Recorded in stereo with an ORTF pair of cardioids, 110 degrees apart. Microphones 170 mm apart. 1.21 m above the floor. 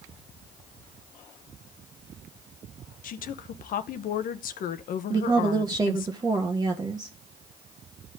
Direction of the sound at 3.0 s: 60° left.